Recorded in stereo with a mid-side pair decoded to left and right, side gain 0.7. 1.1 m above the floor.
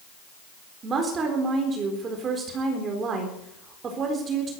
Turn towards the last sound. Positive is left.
turn(degrees=-35)